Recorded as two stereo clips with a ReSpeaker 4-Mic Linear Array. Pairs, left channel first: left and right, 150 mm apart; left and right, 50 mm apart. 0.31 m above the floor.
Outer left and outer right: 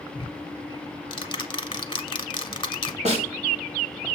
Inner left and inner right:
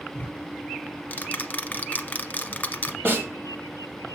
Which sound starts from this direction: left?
Ticking, at 0.1 s.